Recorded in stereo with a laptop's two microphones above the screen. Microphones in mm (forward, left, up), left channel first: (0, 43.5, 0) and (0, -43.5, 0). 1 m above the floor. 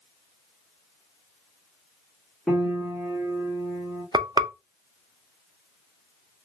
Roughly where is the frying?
Right.